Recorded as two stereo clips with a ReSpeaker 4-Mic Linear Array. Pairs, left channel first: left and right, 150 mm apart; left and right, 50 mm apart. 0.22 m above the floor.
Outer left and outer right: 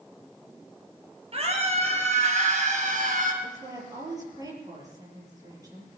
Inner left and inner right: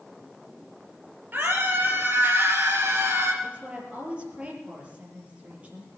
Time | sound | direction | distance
1.3 | a scream | 40° right (ahead or behind) | 3.5 m
3.4 | a woman speaking | 25° right (ahead or behind) | 6 m